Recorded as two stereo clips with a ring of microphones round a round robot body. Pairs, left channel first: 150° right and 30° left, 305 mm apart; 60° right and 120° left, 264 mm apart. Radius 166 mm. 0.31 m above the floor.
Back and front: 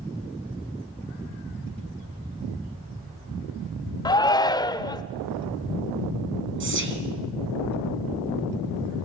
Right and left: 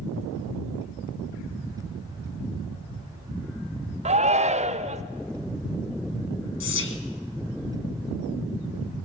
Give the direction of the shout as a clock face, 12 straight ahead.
7 o'clock.